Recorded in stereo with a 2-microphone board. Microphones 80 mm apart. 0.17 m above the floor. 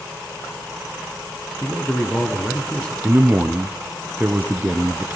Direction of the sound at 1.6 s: 15° left (ahead or behind).